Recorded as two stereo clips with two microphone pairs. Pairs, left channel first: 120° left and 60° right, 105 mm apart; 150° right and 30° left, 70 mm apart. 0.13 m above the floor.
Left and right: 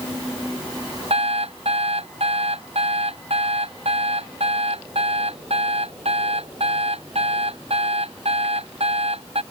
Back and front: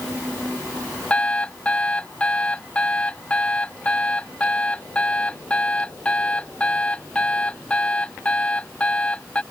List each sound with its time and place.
1.1 s an alarm clock: 75° right